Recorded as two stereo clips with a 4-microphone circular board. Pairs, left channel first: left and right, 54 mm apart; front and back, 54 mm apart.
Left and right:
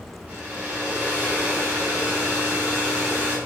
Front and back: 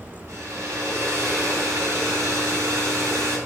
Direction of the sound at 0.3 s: 150° right.